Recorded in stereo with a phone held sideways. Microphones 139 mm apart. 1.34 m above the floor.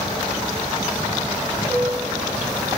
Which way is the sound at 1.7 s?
Centre (ahead or behind).